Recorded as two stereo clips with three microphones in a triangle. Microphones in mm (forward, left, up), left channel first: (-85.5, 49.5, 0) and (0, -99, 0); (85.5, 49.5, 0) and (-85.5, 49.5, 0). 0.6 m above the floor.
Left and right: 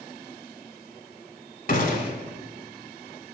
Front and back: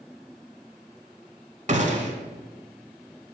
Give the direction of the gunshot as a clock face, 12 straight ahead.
7 o'clock.